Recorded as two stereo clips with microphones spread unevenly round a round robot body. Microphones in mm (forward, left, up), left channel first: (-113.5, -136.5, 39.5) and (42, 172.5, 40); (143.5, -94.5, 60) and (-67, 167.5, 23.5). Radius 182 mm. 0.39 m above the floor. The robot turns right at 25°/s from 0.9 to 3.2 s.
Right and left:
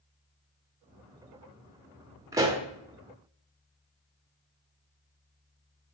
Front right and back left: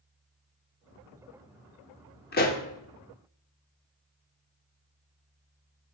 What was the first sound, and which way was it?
A pop, 10° right.